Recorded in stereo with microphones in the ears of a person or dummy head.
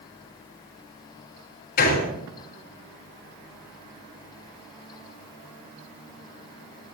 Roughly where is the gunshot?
Left.